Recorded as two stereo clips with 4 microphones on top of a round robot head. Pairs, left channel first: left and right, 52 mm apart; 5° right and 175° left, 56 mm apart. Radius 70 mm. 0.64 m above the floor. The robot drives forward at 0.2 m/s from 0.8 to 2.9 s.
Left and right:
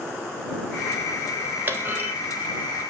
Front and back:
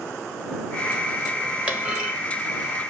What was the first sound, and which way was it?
A clunk, 125° right.